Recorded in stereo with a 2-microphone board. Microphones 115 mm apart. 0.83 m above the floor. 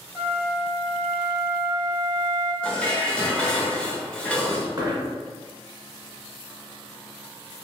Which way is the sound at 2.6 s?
10° left (ahead or behind).